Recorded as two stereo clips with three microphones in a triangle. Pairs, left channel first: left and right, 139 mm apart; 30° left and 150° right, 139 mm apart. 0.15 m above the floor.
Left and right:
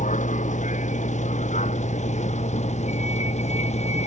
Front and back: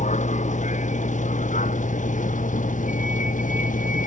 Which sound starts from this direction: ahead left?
A vehicle, at 0.0 s.